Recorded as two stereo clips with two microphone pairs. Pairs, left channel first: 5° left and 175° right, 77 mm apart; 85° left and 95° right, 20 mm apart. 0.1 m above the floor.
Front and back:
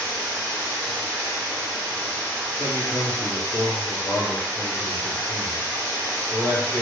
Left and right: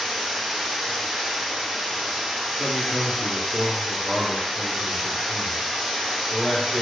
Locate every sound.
0.0 s running water: 50° right, 1.5 m
2.6 s a man speaking: 45° left, 1.4 m